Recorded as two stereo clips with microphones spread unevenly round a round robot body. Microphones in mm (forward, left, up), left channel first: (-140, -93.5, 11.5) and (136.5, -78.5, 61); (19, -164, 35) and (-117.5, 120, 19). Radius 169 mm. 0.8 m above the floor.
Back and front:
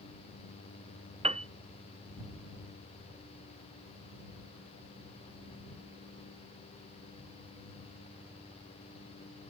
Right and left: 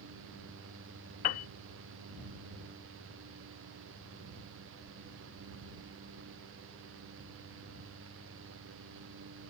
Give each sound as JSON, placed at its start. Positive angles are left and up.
{"t": 1.2, "sound": "a piano", "azimuth_deg": -70}